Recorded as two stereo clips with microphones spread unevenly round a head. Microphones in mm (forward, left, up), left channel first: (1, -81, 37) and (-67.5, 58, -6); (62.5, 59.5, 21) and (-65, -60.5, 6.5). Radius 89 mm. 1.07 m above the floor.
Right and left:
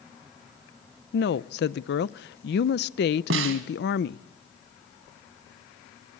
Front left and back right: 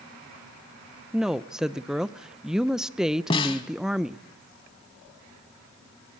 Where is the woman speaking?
55° right, 0.5 m.